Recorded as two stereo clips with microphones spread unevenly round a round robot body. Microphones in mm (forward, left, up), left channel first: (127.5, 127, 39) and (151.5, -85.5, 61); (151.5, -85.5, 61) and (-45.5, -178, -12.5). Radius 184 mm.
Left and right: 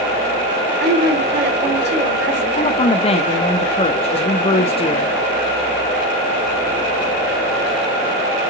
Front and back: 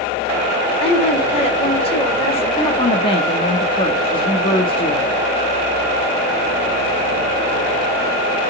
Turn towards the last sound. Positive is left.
turn(degrees=110)